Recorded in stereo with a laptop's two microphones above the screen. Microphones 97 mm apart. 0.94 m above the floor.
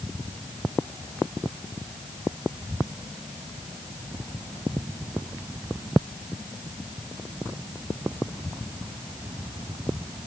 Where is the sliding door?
No sliding door in this recording.